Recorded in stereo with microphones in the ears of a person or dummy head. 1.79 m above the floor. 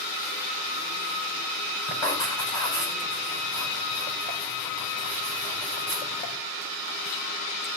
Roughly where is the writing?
Centre.